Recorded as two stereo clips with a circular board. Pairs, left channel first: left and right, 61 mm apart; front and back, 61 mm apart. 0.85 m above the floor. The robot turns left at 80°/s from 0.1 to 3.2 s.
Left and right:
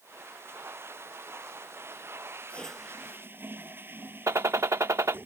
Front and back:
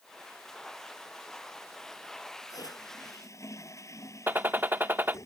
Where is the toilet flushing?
25° left; by 5.3 s 35° right.